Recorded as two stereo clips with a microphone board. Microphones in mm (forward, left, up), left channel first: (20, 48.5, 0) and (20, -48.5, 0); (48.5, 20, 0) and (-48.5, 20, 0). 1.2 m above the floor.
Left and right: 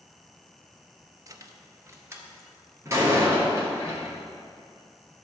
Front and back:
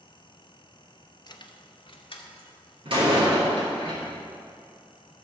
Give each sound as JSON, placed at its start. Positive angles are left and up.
{"t": 1.3, "sound": "keys jangling", "azimuth_deg": -40, "distance_m": 0.6}
{"t": 2.9, "sound": "a door slam", "azimuth_deg": -150, "distance_m": 2.5}